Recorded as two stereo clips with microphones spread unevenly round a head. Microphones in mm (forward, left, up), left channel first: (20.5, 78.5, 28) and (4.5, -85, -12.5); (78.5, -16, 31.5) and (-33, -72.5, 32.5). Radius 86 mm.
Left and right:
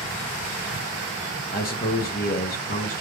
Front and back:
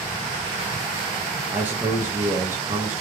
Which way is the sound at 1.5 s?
130° left.